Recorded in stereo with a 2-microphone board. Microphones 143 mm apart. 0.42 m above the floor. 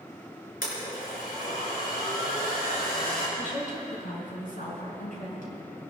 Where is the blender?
80° left, 5 m.